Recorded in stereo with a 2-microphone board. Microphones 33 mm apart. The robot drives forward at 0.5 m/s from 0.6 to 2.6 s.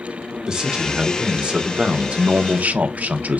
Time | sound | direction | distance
0.5 | a man speaking | 20° right (ahead or behind) | 1.4 m